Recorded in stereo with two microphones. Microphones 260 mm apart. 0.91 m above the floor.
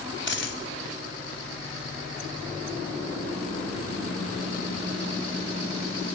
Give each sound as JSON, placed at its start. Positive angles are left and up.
{"t": 0.3, "sound": "a dropped coin", "side_deg": 45, "distance_m": 2.0}